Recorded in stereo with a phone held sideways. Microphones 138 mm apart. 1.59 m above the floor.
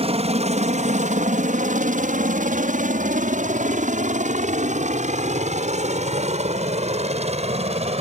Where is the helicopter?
50° right (ahead or behind).